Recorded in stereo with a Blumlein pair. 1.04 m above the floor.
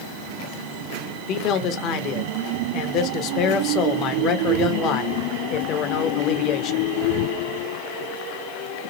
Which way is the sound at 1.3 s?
35° left.